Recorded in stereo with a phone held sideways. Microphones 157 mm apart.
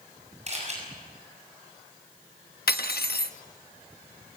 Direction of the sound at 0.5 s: 45° right (ahead or behind).